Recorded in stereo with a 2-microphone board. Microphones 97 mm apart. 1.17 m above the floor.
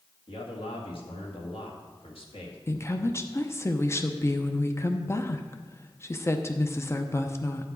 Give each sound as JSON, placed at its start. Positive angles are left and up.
{"t": 0.3, "sound": "a man speaking", "side_deg": 70, "distance_m": 1.8}
{"t": 2.7, "sound": "a woman speaking", "side_deg": 30, "distance_m": 0.7}